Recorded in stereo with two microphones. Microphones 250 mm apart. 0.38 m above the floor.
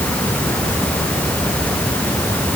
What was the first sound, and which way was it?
Only background noise.